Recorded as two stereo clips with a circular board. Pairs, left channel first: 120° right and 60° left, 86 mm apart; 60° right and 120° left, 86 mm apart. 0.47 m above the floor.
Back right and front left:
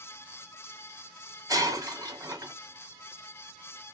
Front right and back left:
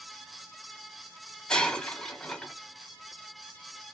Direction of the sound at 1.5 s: 20° left.